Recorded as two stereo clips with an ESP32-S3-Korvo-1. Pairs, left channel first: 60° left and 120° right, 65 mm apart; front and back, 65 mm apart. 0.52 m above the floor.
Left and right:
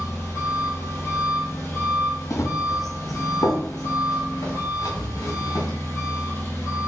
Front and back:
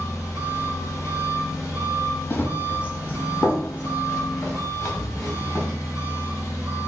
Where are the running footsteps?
45° left, 0.8 m; by 5.7 s 60° left, 2.5 m.